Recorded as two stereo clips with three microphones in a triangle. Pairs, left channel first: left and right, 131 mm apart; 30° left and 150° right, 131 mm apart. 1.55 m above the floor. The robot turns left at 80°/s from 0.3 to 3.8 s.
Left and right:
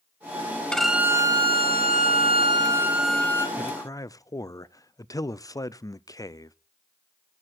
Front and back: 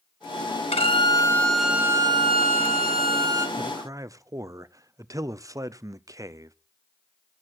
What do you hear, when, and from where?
0.7 s a violin: 10° left, 1.6 m; by 3.5 s 150° left, 1.6 m
3.6 s a man speaking: 170° left, 0.5 m; by 6.5 s 150° left, 0.5 m